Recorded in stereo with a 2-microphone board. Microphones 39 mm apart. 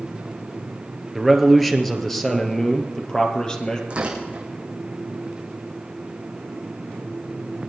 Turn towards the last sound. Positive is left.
turn(degrees=-30)  # may be behind; listen again after turning